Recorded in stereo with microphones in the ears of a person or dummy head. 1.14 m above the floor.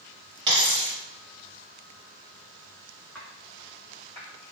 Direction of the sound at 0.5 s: 20° right (ahead or behind).